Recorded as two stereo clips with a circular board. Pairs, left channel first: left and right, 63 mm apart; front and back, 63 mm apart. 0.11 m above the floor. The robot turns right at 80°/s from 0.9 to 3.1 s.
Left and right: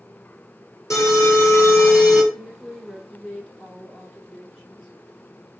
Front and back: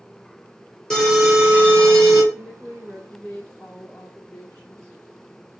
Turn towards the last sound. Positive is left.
turn(degrees=10)